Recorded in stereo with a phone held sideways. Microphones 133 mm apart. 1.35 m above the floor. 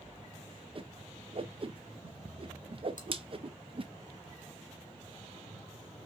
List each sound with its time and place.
0.8 s a whoosh: 40° right (ahead or behind), 0.5 m
3.0 s chewing: 70° left (ahead or behind), 1.5 m